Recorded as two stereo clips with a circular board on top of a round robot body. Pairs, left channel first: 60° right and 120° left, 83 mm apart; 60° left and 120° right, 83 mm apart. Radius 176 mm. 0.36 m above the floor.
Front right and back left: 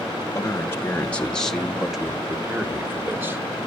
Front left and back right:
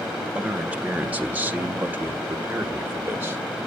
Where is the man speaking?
50° right, 1.3 m; by 3.4 s 175° left, 1.7 m.